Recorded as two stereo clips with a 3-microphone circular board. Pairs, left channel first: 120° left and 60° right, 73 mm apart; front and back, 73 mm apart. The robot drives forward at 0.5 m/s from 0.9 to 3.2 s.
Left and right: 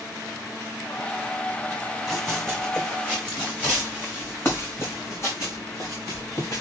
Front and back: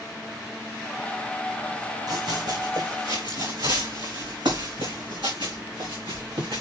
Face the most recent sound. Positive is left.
turn(degrees=160)